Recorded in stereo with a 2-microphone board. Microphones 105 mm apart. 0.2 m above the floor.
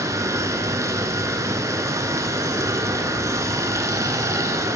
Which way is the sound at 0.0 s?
30° right (ahead or behind).